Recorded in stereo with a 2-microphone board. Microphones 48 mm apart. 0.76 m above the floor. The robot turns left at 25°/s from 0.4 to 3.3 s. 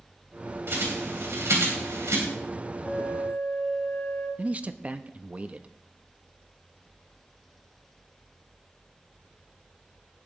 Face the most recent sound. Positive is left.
turn(degrees=-30)  # may be behind; listen again after turning